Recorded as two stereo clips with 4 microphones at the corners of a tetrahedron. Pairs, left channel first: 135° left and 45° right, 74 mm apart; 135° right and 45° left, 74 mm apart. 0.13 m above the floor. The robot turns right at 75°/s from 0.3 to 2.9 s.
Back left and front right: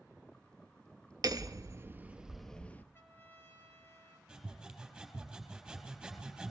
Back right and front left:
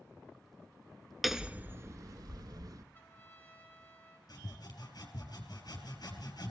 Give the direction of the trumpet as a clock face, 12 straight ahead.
6 o'clock.